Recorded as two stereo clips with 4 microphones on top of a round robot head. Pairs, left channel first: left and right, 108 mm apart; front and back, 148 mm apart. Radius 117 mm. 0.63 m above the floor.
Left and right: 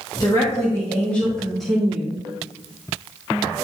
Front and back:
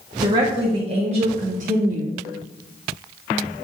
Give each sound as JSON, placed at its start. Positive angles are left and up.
{"t": 0.2, "sound": "a woman speaking", "azimuth_deg": 130, "distance_m": 1.6}